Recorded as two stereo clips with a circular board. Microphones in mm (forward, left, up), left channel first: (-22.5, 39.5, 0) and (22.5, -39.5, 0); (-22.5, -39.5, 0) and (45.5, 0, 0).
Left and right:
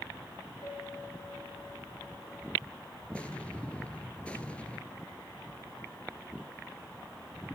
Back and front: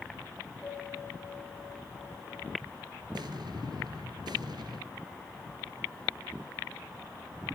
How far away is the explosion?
About 1.6 m.